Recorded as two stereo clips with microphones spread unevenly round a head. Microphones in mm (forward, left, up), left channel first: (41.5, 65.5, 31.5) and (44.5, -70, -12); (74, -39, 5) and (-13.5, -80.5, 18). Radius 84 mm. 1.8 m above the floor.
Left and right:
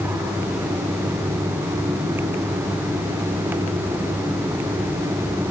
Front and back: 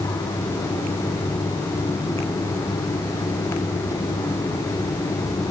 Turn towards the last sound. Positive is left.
No sound to turn to.